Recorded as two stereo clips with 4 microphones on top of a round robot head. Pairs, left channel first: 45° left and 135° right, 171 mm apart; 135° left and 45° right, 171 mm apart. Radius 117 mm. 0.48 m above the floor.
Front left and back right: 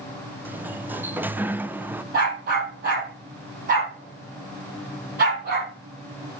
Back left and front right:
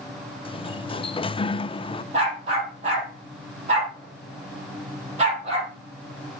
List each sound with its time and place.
0.5 s a sliding door: 155° left, 0.6 m
2.1 s a dog barking: 100° right, 5.5 m